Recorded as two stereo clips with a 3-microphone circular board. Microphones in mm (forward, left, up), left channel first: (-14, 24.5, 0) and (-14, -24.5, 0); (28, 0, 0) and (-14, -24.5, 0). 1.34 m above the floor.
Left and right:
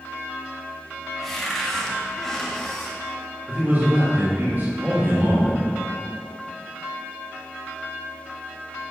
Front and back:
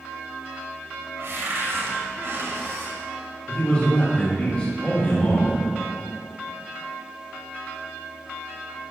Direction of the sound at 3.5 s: 35° right.